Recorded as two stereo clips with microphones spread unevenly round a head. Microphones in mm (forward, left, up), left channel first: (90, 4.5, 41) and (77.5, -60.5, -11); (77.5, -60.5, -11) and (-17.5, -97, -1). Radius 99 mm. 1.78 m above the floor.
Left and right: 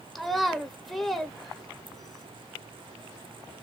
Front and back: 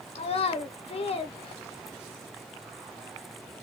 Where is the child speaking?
30° left, 0.9 m.